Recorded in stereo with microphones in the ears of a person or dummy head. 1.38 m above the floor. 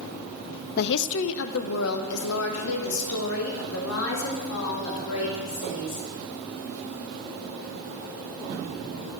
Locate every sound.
0.8 s a woman speaking: 55° left (ahead or behind), 0.5 m; by 6.1 s 85° left, 4 m